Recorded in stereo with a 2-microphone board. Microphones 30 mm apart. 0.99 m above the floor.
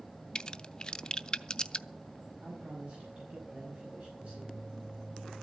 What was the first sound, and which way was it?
A crack, 30° left (ahead or behind).